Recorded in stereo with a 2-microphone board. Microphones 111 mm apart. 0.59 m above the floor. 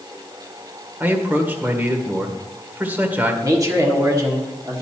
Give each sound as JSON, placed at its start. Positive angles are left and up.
{"t": 1.0, "sound": "a man speaking", "side_deg": -15, "distance_m": 1.5}
{"t": 3.4, "sound": "a man speaking", "side_deg": -30, "distance_m": 1.5}